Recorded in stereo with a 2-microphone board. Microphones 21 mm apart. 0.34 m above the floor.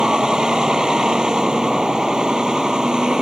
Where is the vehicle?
40° right (ahead or behind).